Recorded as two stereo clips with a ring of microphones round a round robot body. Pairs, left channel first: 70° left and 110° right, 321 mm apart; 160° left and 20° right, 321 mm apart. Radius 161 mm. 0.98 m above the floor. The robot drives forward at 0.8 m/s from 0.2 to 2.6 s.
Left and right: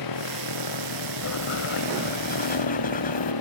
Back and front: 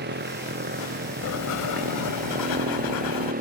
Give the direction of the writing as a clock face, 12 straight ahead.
8 o'clock.